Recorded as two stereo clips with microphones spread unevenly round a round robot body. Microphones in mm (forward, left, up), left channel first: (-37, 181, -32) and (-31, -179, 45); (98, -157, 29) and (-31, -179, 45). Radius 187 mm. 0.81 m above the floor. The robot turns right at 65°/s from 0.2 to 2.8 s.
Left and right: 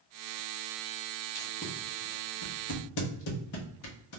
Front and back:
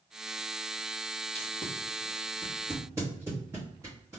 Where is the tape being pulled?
15° left, 0.7 m; by 4.2 s 110° left, 0.7 m.